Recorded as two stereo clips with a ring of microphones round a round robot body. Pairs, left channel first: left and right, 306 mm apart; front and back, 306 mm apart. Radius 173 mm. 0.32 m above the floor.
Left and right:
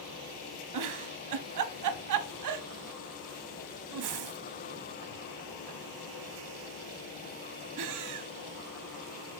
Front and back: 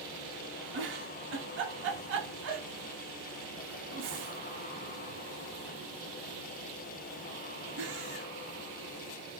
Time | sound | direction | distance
0.7 | a giggle | 120° right | 0.6 m